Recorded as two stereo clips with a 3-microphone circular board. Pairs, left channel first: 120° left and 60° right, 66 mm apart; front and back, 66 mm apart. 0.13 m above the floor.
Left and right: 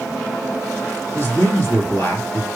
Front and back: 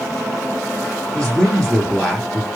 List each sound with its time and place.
1.1 s a man speaking: 85° left, 2 m